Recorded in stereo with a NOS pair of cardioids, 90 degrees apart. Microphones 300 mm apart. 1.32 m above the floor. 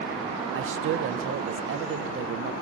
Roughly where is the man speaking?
Ahead right.